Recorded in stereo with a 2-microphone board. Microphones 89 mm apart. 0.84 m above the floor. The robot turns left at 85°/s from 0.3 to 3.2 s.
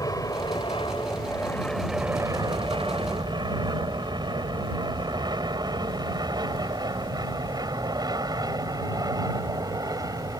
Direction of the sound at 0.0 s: 40° left (ahead or behind).